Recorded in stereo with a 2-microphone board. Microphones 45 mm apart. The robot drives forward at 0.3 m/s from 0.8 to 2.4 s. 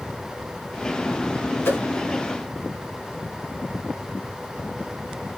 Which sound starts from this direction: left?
A whoosh, at 1.6 s.